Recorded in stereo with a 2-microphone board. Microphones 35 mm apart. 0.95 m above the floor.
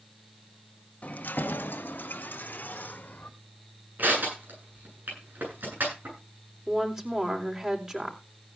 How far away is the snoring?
I don't hear snoring.